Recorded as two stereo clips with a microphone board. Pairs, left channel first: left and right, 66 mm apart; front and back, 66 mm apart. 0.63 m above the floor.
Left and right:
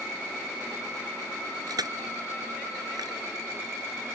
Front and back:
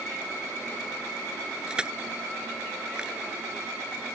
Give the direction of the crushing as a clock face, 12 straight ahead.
3 o'clock.